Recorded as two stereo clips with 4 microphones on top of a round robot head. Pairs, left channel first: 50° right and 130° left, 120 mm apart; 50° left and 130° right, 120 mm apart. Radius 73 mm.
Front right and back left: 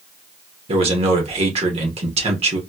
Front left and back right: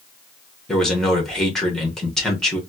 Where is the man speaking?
135° left, 1.4 m.